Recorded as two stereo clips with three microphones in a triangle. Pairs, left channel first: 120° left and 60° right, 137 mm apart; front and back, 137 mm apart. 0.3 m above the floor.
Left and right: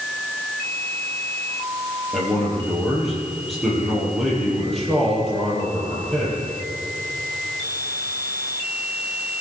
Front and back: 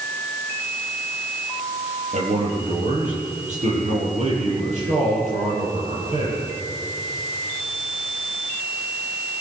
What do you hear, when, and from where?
2.1 s a man speaking: 150° right, 10 m